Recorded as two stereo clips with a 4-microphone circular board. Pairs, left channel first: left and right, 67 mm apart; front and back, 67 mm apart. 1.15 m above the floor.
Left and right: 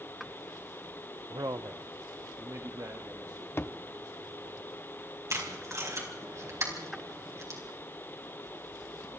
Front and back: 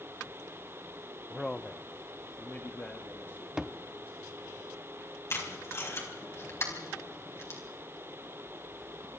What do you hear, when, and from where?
1.3 s a man speaking: 90° right, 0.6 m; by 4.6 s 55° right, 3.5 m
3.6 s a thud: 105° left, 0.8 m
5.3 s tape being pulled: 50° right, 4.5 m